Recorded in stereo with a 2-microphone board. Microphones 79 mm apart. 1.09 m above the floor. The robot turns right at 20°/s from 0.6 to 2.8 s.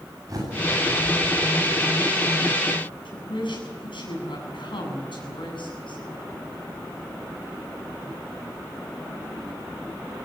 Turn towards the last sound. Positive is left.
turn(degrees=90)